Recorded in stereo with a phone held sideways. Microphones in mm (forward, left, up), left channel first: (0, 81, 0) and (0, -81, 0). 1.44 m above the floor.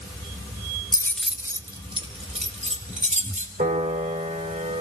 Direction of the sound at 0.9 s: 25° left (ahead or behind).